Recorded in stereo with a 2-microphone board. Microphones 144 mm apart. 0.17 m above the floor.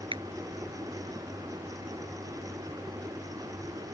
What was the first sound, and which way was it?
A finger snap, 35° right (ahead or behind).